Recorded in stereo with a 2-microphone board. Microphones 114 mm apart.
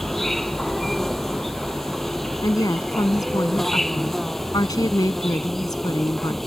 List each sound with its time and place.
0.0 s an insect: centre (ahead or behind)
2.4 s a woman speaking: 35° left (ahead or behind)